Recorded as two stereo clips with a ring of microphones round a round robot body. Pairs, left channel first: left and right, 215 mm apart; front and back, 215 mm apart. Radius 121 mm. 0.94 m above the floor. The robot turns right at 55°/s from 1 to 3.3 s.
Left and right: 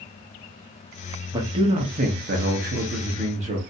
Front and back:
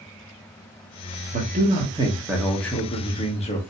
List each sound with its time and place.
1.3 s a man speaking: 155° right, 1.1 m; by 3.6 s 45° right, 1.1 m